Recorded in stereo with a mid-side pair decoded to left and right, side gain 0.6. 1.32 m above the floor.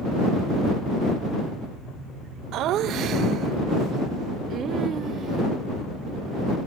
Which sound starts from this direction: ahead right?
Laughter, at 2.5 s.